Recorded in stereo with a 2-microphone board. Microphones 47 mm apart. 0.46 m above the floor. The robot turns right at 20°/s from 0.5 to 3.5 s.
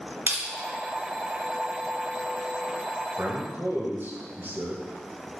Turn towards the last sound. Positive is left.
turn(degrees=-50)  # may be behind; listen again after turning